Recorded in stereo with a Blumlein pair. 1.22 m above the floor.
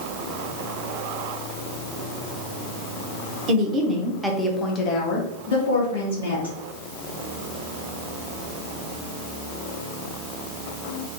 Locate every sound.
3.5 s a woman speaking: 30° right, 0.8 m; by 6.5 s 70° left, 1.3 m